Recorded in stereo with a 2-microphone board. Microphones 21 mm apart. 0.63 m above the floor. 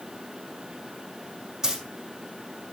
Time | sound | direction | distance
1.6 | a dropped coin | 30° right (ahead or behind) | 5 m